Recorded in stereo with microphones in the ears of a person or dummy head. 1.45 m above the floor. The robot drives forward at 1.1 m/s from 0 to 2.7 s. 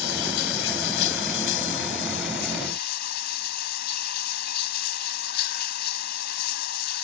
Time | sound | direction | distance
0.0 | running water | 85° left | ?